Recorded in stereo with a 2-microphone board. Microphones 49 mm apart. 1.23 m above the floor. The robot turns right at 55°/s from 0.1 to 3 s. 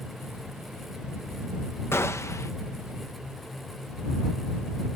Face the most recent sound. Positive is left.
turn(degrees=120)